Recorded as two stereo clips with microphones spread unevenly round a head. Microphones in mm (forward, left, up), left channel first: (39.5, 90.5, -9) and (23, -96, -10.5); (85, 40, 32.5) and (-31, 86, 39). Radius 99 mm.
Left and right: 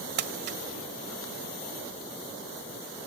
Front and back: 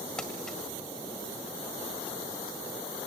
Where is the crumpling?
110° right, 1.5 m.